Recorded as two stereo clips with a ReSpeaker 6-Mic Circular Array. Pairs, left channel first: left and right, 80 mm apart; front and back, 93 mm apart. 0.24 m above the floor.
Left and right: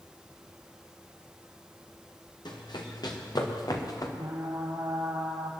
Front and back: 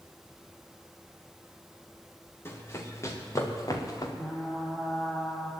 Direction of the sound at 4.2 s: 65° right.